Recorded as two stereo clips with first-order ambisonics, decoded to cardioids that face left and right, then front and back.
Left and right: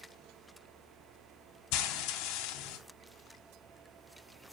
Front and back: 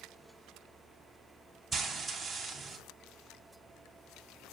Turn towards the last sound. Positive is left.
turn(degrees=100)